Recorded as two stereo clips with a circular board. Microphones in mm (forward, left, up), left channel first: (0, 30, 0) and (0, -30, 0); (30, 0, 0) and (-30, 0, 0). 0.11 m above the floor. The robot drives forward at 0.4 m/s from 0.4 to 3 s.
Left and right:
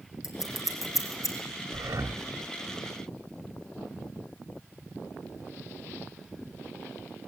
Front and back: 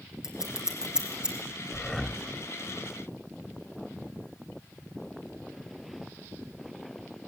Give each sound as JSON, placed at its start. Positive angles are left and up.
{"t": 0.2, "sound": "scissors", "azimuth_deg": 100, "distance_m": 4.0}
{"t": 1.7, "sound": "breathing", "azimuth_deg": -80, "distance_m": 1.2}